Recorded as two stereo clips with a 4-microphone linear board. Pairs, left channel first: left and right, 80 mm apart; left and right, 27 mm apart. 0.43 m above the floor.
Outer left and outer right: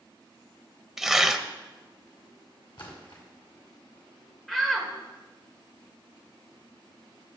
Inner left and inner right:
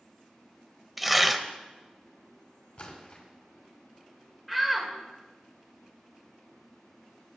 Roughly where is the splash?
Left.